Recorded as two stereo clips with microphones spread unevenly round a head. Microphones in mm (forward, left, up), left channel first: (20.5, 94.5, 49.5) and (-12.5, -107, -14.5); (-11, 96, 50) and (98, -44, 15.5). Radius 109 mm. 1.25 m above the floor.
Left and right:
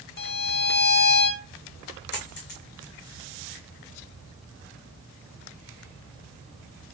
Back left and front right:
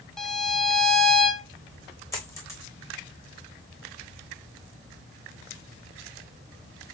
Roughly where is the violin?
Ahead left.